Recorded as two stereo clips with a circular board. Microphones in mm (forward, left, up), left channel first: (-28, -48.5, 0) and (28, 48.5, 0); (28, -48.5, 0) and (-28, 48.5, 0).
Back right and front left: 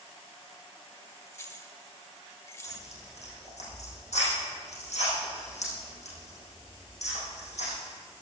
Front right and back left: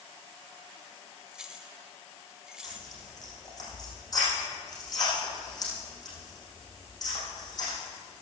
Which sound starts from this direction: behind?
Keys jangling, at 1.3 s.